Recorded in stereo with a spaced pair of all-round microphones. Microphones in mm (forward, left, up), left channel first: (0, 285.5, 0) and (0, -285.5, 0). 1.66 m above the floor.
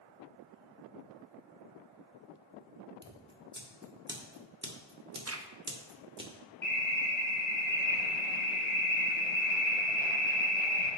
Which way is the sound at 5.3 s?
25° right (ahead or behind).